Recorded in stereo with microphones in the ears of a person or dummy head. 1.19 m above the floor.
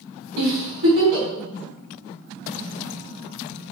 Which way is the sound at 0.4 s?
60° right (ahead or behind).